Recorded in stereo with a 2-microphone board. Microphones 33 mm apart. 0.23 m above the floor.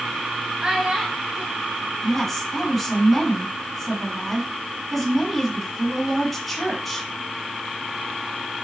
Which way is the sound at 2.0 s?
5° left (ahead or behind).